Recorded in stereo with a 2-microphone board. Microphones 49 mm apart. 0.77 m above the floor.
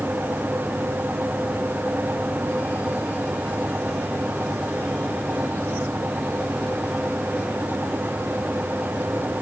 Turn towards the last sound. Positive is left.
No sound to turn to.